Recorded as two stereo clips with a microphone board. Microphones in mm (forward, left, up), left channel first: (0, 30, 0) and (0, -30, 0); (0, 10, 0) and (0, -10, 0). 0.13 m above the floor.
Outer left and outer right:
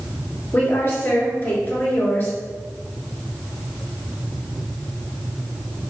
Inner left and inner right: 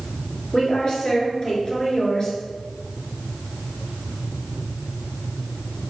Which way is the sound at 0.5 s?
35° left (ahead or behind).